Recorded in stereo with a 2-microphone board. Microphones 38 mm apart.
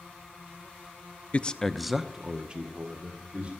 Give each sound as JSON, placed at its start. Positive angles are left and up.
{"t": 1.3, "sound": "a man speaking", "side_deg": 35, "distance_m": 0.5}